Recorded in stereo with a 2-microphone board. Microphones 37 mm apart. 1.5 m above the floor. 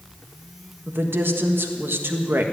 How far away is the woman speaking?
About 1.6 m.